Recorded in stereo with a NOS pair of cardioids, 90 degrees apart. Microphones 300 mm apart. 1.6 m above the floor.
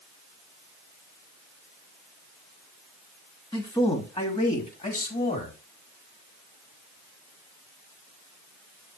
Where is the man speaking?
15° left, 3 m; by 5.6 s 30° left, 4.5 m.